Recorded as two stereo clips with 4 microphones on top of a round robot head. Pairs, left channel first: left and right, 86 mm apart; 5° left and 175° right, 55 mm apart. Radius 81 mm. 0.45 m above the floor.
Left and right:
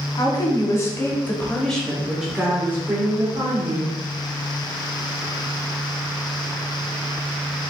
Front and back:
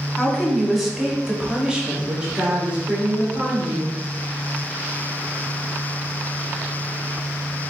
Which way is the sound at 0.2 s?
85° left.